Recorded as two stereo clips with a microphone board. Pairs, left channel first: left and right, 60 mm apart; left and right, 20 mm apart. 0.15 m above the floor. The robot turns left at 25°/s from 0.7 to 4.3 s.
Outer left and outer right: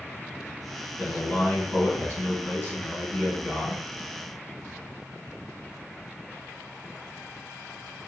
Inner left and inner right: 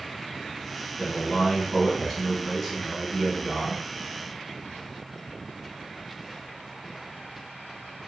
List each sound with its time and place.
1.0 s a man speaking: 80° left, 2.0 m; by 3.8 s 10° left, 2.0 m